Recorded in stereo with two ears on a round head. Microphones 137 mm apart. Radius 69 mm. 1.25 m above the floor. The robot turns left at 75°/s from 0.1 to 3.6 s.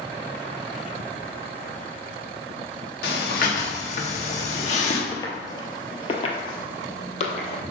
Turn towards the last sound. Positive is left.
turn(degrees=50)  # may be behind; listen again after turning